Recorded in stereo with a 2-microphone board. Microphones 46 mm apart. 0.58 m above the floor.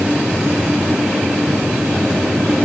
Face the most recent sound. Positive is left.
No sound to turn to.